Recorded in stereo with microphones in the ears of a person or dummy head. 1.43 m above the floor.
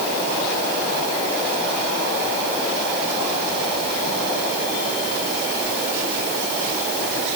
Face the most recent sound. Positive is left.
No sound to turn to.